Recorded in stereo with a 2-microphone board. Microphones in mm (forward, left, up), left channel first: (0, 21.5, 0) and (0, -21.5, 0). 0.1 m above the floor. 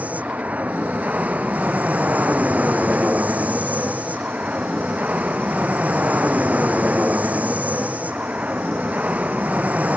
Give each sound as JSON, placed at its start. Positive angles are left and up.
{"t": 0.0, "sound": "an aircraft", "side_deg": -40}